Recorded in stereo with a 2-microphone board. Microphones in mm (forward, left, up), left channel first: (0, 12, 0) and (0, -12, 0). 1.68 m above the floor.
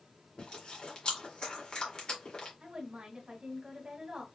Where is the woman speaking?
40° right (ahead or behind), 2 m.